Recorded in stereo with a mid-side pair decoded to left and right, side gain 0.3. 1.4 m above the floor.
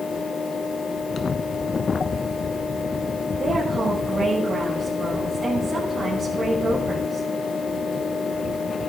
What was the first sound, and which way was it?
A fan, 70° left.